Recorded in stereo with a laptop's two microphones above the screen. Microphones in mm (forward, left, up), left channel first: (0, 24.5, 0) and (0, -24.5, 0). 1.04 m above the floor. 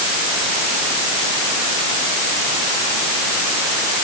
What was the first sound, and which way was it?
Only background noise.